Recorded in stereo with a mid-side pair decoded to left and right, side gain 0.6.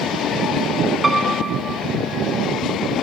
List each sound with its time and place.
1.0 s a piano: 15° right, 0.9 m